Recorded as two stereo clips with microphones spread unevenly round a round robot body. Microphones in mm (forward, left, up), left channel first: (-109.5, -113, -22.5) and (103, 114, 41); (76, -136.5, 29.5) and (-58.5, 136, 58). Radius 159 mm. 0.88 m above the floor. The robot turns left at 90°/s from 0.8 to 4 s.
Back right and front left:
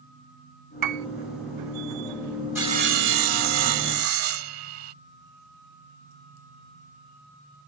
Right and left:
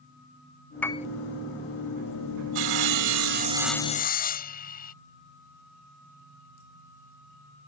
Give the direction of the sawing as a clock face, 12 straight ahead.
8 o'clock.